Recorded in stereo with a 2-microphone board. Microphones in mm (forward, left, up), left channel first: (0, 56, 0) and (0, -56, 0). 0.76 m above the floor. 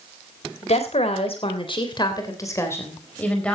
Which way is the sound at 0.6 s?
75° left (ahead or behind).